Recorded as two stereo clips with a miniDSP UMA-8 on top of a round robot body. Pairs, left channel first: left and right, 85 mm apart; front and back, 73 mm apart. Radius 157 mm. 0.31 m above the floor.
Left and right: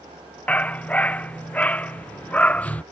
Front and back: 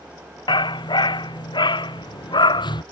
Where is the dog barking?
15° left.